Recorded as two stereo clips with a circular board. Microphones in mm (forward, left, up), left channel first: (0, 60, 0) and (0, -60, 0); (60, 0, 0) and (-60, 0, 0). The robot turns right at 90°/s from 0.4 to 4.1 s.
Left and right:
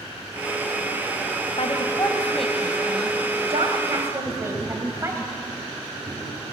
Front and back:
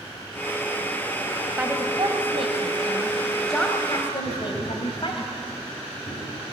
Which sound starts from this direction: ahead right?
Tapping, at 4.2 s.